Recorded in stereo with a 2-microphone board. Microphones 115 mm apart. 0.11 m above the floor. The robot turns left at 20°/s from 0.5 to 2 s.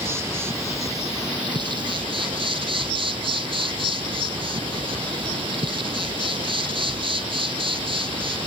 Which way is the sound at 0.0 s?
25° right.